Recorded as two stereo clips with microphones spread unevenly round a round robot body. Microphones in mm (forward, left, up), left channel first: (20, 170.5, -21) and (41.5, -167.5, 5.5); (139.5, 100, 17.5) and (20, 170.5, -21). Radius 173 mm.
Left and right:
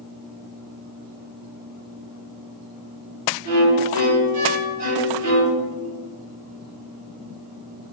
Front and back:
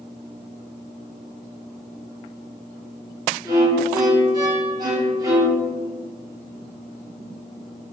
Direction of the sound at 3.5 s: 130° right.